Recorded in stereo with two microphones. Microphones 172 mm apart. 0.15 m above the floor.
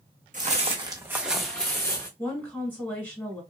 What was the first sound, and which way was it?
Footsteps, 50° right (ahead or behind).